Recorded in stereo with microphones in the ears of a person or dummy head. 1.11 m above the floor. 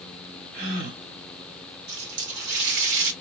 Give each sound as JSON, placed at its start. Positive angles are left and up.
{"t": 0.5, "sound": "a gasp", "side_deg": -60, "distance_m": 2.0}
{"t": 1.9, "sound": "a running tap", "side_deg": -65, "distance_m": 1.7}